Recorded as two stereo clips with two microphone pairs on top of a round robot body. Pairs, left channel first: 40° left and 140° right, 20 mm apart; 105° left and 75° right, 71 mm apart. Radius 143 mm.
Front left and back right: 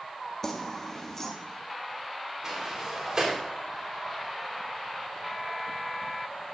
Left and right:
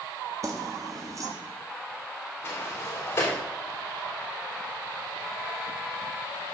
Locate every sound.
0.4 s keys jangling: 25° right, 1.4 m
2.4 s a sliding door: 170° left, 3 m